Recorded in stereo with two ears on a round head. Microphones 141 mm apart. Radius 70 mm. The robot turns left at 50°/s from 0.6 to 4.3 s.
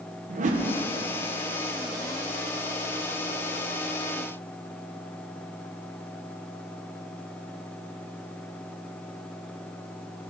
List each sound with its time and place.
0.3 s a whoosh: 50° right (ahead or behind), 0.9 m; by 0.7 s 45° right (ahead or behind), 0.9 m